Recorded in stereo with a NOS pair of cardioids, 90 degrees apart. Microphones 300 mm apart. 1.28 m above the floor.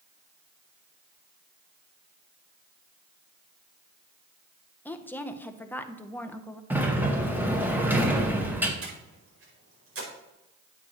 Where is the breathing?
50° right, 5 m.